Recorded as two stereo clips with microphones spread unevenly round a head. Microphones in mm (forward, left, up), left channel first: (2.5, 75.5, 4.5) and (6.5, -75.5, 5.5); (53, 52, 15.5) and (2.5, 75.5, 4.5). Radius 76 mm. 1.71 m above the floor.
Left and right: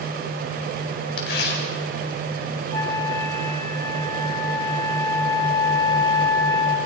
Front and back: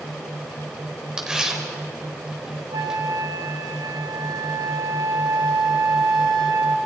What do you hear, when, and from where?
1.2 s tearing paper: 75° left, 4.5 m
2.7 s a flute: 160° left, 1.8 m